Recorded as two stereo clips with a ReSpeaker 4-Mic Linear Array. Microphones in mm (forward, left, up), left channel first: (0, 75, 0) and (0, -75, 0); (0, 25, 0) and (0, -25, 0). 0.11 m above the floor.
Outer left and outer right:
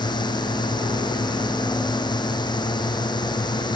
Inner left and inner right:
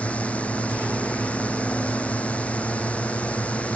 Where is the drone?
30° left (ahead or behind).